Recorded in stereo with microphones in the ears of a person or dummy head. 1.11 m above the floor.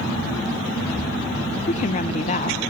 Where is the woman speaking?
40° left (ahead or behind), 1.0 m.